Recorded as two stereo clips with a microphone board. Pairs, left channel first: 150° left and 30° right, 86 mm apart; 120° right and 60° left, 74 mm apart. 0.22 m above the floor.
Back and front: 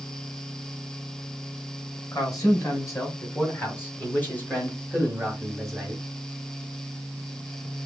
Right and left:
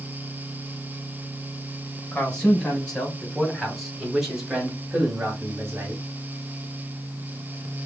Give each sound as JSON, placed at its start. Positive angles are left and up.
{"t": 2.1, "sound": "a man speaking", "azimuth_deg": 175, "distance_m": 2.0}